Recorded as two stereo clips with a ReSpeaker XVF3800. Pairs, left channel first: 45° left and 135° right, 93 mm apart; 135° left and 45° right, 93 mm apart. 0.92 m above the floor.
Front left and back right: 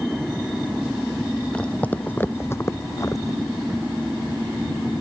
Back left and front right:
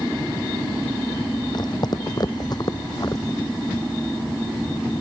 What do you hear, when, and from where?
1.5 s footsteps: 120° left; by 3.4 s 90° left